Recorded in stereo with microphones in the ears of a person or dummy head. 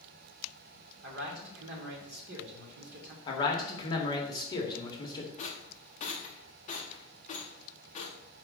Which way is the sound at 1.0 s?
70° right (ahead or behind).